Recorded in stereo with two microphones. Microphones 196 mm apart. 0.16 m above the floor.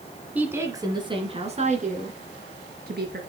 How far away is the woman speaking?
About 1.7 m.